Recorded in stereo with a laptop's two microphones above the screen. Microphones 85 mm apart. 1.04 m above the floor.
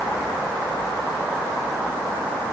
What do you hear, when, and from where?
Only background noise.